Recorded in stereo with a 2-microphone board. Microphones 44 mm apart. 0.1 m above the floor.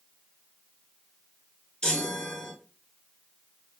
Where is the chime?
15° left (ahead or behind), 0.7 m.